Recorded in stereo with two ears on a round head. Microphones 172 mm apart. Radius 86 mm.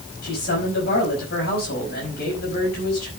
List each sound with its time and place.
0.2 s a man speaking: 50° left (ahead or behind), 5 m